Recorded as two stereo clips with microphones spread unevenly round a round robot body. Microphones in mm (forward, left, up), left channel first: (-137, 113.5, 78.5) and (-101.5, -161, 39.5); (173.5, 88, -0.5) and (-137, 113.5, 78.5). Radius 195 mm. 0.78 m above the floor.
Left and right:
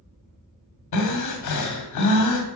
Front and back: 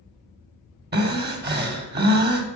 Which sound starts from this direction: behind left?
Breathing, at 0.9 s.